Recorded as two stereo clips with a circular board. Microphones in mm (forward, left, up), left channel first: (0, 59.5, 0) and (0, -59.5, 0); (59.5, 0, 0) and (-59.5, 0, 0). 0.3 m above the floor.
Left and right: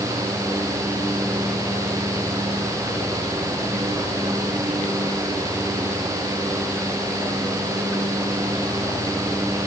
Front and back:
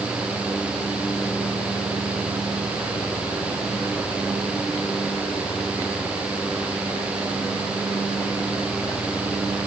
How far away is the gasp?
I don't hear a gasp.